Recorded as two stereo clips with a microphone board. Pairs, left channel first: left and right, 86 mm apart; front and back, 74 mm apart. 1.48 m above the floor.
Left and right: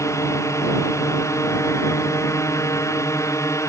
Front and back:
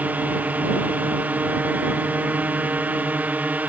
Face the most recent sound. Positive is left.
turn(degrees=120)